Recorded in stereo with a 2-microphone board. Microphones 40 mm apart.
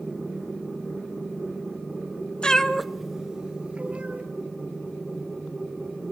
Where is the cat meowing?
20° left (ahead or behind), 0.9 m; by 4.2 s 30° right (ahead or behind), 2.0 m.